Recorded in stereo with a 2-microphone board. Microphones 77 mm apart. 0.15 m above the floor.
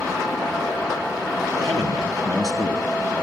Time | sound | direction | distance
1.6 | a man speaking | 60° right (ahead or behind) | 3.5 m